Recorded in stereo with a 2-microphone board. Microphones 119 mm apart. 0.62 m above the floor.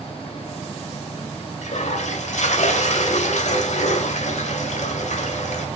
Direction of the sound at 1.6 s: 75° left (ahead or behind).